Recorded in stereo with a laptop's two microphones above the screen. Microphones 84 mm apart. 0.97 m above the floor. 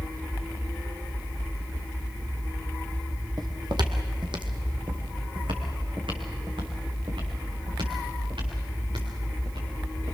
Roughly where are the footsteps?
Right.